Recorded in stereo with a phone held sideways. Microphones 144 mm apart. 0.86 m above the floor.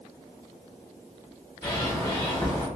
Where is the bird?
30° left (ahead or behind), 0.9 m.